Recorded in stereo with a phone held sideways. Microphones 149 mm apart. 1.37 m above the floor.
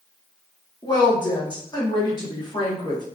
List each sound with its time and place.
0.8 s a woman speaking: 25° left (ahead or behind), 1.3 m